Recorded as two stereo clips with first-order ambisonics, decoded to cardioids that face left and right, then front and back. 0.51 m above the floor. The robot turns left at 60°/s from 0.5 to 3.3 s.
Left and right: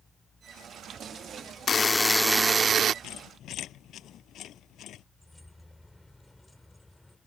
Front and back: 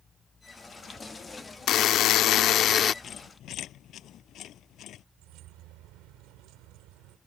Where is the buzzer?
30° left; by 2.9 s 50° right.